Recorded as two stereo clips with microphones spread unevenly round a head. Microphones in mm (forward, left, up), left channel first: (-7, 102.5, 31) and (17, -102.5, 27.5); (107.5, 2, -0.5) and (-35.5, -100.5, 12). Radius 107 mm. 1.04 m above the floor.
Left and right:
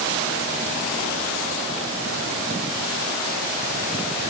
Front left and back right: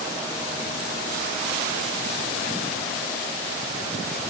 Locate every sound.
Only background noise.